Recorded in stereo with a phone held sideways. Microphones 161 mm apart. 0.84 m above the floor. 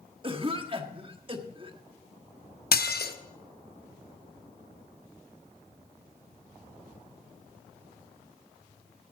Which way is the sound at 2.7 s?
70° left (ahead or behind).